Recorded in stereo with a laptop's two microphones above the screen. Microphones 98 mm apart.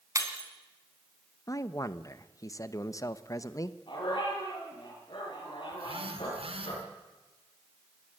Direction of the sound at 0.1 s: 30° right (ahead or behind).